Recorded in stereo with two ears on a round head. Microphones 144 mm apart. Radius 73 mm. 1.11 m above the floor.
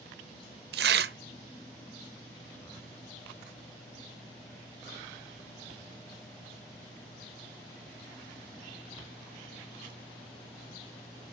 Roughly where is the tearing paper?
Right.